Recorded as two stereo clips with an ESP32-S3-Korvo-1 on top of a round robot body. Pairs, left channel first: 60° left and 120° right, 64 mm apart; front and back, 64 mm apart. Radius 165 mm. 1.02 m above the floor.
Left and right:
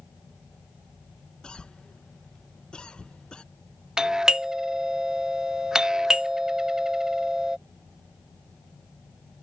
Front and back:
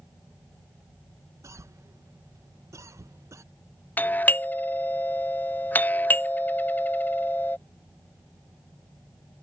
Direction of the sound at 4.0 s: 45° right.